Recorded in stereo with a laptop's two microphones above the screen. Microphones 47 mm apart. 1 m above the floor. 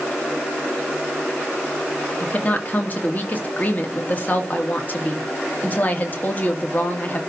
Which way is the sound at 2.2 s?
35° left (ahead or behind).